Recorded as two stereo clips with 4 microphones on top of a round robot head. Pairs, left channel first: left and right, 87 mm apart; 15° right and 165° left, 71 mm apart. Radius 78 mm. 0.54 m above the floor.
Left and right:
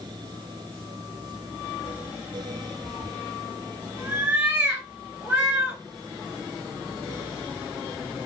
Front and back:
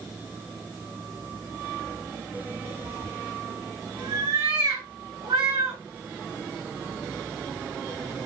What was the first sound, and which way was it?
A cat meowing, 165° right.